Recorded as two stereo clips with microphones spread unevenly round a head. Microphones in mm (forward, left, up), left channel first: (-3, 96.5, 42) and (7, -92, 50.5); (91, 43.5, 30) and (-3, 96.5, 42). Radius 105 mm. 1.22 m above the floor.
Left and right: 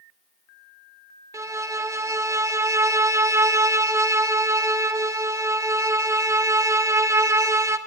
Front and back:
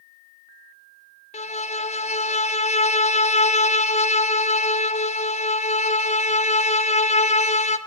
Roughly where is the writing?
I don't hear writing.